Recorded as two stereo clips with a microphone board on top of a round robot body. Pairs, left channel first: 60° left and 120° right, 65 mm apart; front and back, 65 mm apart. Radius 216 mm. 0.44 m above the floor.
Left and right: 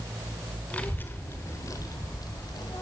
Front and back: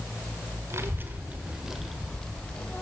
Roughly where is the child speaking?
Behind left.